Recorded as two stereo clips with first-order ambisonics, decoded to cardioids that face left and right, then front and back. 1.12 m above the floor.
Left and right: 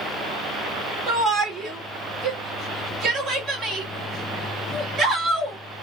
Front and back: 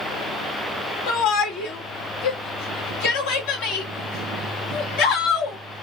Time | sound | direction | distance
1.1 | a shout | 20° right | 2.5 m